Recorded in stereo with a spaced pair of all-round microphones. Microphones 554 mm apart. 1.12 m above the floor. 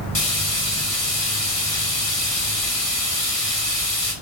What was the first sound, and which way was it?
Frying, 70° left (ahead or behind).